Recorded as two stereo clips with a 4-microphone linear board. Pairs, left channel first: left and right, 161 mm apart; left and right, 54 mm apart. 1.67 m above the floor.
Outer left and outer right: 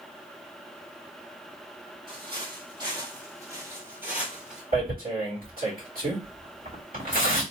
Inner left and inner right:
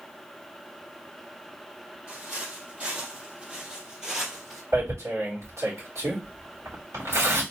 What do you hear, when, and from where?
2.1 s footsteps: 35° right (ahead or behind), 2.5 m; by 4.6 s 5° right (ahead or behind), 1.6 m
4.7 s tearing paper: 70° right (ahead or behind), 3 m